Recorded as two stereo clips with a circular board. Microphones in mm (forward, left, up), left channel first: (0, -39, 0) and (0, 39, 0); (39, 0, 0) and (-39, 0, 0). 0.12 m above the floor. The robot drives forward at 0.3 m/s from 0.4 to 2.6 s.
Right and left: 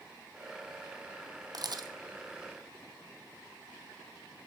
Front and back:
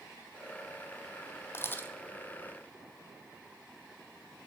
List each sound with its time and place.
1.5 s a camera shutter: 60° left, 0.7 m; by 1.9 s 70° left, 0.6 m